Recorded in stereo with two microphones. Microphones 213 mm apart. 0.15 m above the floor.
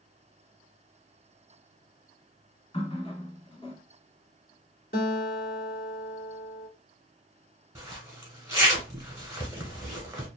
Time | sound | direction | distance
2.7 | a running tap | 25° left (ahead or behind) | 0.8 m
4.9 | a guitar | 45° left (ahead or behind) | 1.1 m
7.8 | a zipper | 15° right (ahead or behind) | 1.1 m